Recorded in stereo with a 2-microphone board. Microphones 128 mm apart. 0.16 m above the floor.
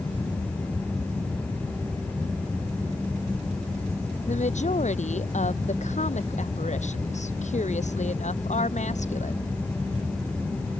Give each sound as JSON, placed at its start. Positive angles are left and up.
{"t": 4.3, "sound": "a woman speaking", "side_deg": 65}